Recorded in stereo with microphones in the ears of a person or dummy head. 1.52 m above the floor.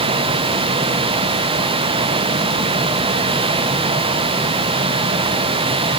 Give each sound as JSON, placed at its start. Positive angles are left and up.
{"t": 0.0, "sound": "a fan", "side_deg": -25, "distance_m": 0.9}